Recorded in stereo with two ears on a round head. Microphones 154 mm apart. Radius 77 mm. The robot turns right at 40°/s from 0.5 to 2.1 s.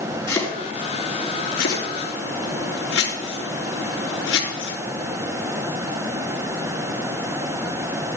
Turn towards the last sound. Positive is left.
turn(degrees=80)